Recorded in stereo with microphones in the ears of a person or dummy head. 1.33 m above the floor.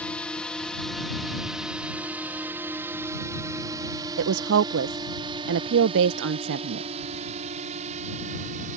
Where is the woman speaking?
70° right (ahead or behind).